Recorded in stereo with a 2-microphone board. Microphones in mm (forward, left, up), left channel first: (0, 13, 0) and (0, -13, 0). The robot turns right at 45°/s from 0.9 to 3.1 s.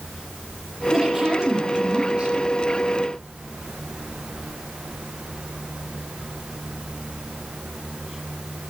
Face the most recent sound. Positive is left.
turn(degrees=-80)